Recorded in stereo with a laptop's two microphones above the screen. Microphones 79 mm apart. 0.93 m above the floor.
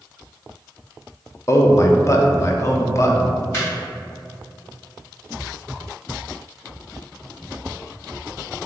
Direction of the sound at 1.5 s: 35° left (ahead or behind).